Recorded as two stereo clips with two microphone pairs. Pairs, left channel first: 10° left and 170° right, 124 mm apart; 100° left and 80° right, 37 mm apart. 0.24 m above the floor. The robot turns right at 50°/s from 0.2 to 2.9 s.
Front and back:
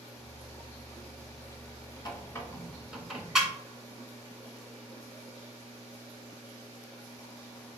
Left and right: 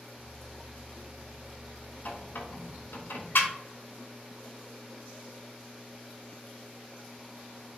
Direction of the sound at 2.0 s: 65° left.